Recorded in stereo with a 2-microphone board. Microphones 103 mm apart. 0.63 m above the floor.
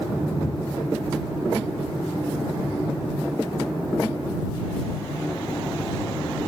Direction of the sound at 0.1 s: 45° left (ahead or behind).